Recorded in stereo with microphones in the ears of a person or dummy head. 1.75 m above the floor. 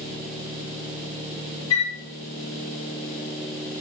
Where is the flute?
25° left (ahead or behind), 1.2 m.